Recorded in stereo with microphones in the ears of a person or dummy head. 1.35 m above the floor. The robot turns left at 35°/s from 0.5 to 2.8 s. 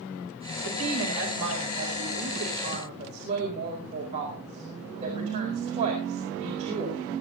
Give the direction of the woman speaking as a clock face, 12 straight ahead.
2 o'clock.